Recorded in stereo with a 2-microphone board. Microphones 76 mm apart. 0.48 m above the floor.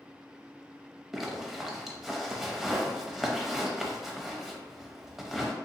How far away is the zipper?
About 0.6 m.